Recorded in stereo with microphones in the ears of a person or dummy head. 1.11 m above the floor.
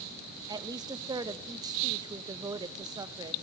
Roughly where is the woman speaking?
Centre.